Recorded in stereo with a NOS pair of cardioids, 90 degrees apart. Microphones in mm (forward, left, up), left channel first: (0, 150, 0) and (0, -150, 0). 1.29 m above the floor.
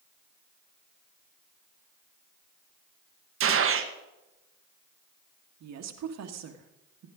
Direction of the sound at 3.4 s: 50° right.